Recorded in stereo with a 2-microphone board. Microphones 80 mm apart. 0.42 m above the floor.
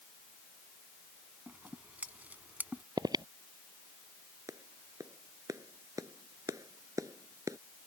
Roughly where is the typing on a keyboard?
No typing on a keyboard in this recording.